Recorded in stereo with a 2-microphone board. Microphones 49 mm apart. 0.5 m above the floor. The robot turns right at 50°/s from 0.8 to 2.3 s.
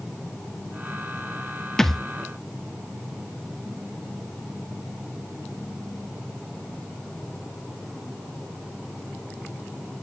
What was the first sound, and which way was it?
A thud, 10° left (ahead or behind).